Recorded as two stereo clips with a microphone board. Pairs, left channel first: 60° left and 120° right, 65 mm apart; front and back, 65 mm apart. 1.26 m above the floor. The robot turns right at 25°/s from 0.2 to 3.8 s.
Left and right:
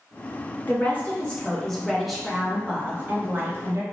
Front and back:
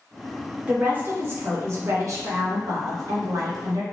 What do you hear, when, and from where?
0.7 s a woman speaking: 115° left, 0.9 m; by 3.8 s 165° right, 0.9 m